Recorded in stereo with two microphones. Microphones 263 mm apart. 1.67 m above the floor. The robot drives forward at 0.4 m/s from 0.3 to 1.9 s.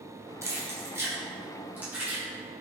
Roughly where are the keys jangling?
Centre.